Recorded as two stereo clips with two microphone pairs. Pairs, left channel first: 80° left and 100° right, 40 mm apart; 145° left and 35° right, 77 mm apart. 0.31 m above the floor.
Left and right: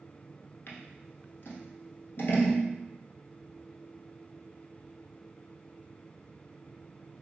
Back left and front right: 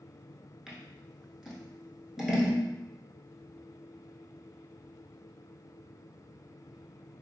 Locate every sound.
0.7 s scissors: 50° left, 0.8 m